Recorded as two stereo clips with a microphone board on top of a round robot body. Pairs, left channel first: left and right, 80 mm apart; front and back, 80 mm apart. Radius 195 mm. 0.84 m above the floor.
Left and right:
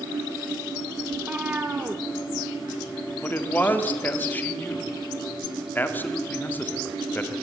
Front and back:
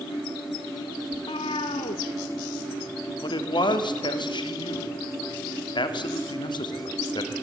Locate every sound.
1.1 s a cat meowing: 15° right, 0.7 m
3.2 s a man speaking: 25° left, 1.9 m